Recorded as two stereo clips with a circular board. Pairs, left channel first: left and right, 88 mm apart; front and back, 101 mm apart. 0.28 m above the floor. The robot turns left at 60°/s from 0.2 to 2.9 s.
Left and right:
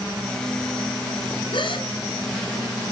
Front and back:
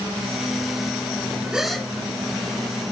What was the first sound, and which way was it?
A gasp, 100° left.